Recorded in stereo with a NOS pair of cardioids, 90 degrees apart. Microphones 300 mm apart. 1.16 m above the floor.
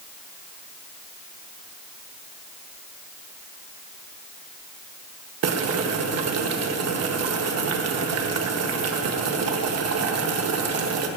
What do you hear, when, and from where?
5.4 s boiling: 55° right, 1.5 m